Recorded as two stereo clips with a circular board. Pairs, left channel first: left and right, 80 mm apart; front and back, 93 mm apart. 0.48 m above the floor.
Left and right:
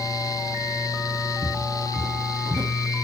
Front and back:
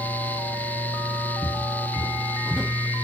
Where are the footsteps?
45° right, 1.1 m; by 2.7 s 105° right, 0.8 m.